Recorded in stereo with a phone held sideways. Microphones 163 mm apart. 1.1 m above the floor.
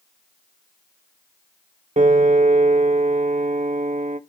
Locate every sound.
2.0 s a piano: 45° right (ahead or behind), 0.6 m